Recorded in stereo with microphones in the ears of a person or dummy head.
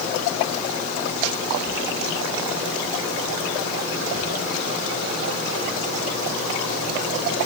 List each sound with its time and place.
Only background noise.